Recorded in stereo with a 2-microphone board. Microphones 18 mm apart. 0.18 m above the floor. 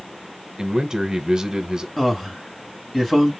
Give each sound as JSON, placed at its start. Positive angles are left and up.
{"t": 0.6, "sound": "a man speaking", "side_deg": -35, "distance_m": 1.3}
{"t": 2.0, "sound": "a man speaking", "side_deg": 20, "distance_m": 1.7}